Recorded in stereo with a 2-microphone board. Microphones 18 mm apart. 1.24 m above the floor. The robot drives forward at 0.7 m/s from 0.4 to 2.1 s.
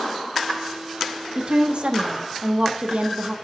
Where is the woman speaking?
55° right (ahead or behind), 1.4 m; by 3.4 s 75° right (ahead or behind), 1.2 m.